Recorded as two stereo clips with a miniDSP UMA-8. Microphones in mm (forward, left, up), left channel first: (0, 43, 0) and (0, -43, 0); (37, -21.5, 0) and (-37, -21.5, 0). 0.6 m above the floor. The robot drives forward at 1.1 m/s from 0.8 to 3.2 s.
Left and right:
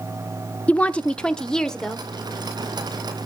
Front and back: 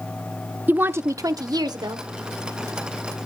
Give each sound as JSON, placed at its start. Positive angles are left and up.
{"t": 0.7, "sound": "a woman speaking", "azimuth_deg": 150, "distance_m": 0.7}